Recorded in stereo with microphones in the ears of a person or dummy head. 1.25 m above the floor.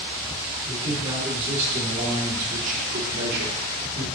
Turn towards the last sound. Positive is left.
turn(degrees=-70)  # may be behind; listen again after turning